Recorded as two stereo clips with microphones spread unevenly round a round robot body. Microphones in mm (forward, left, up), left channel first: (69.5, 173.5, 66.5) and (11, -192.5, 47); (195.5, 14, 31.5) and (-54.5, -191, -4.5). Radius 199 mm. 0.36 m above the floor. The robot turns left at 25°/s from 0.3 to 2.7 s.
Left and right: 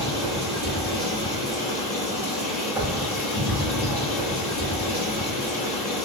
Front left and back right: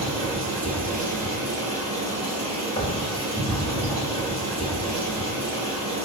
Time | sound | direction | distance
0.0 | running water | straight behind | 1.4 m
2.8 | knocking | 35° right | 0.5 m